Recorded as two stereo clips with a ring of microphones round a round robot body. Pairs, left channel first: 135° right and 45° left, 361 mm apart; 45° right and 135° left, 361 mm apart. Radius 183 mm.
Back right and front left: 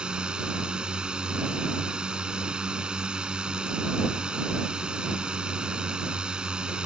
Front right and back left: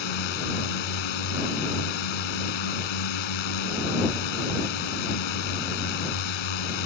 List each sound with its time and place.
0.0 s a drone: 45° right